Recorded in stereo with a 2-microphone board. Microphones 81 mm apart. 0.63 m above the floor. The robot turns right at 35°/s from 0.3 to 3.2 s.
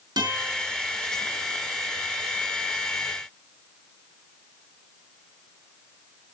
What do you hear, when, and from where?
0.2 s a guitar: 60° right (ahead or behind), 5 m; by 0.7 s 75° right (ahead or behind), 5 m